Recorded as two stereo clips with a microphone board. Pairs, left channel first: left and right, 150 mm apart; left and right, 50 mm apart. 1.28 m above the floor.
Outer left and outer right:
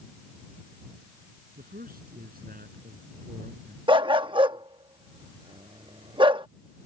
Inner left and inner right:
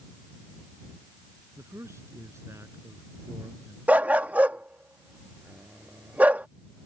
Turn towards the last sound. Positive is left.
turn(degrees=-35)  # may be behind; listen again after turning